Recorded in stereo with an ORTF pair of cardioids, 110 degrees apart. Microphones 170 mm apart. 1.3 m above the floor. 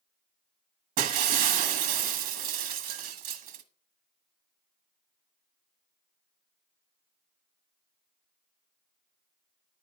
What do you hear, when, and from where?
1.0 s breaking glass: 60° right, 1.5 m